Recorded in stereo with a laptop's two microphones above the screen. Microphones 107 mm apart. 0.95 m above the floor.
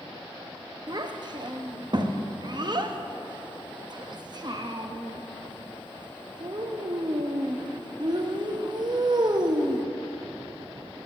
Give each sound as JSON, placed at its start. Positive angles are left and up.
{"t": 0.9, "sound": "a child speaking", "side_deg": -40, "distance_m": 0.9}